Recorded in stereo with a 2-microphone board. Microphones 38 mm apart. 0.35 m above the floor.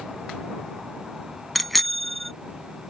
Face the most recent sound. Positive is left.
turn(degrees=5)  # may be behind; listen again after turning